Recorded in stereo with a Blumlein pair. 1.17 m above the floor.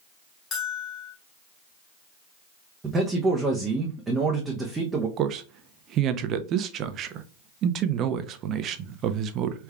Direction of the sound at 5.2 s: 30° right.